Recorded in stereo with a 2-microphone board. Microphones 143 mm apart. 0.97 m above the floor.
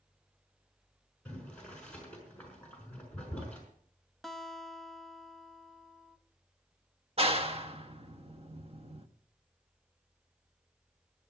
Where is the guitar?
Centre (ahead or behind), 0.7 m.